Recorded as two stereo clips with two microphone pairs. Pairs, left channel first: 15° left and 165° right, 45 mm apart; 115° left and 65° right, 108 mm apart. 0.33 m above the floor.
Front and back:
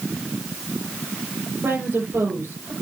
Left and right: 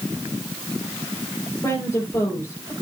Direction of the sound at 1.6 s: Straight behind.